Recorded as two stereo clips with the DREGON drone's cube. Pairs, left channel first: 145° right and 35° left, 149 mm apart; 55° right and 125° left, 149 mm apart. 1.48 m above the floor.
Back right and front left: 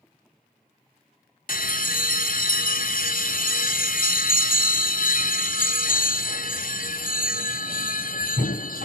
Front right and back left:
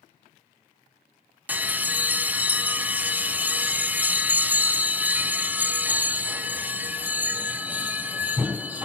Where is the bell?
155° right, 0.6 m.